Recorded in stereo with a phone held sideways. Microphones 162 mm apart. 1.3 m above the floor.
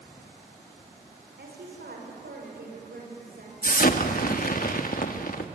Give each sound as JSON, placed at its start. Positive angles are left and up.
{"t": 1.4, "sound": "a woman speaking", "side_deg": -85, "distance_m": 5.5}
{"t": 3.6, "sound": "an explosion", "side_deg": 60, "distance_m": 1.4}